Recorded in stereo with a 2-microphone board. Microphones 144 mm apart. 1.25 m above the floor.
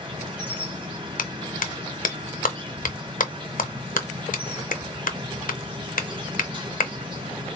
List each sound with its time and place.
0.0 s an insect: 35° right (ahead or behind), 1.5 m
1.2 s a clap: 80° left, 0.6 m